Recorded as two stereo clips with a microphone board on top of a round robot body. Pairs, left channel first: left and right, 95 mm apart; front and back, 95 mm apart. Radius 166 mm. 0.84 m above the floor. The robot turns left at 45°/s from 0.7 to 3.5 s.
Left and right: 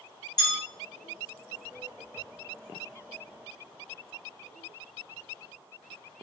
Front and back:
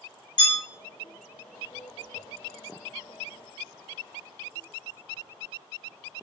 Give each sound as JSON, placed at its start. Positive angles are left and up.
{"t": 0.4, "sound": "a bell", "azimuth_deg": 45, "distance_m": 1.4}